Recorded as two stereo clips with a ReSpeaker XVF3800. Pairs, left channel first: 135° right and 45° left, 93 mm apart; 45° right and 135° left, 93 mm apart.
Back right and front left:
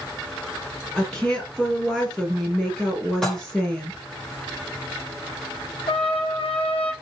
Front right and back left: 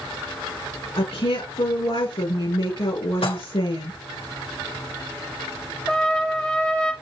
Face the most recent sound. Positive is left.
turn(degrees=-125)